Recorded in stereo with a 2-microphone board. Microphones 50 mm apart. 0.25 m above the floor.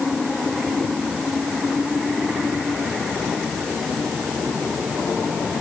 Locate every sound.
Only background noise.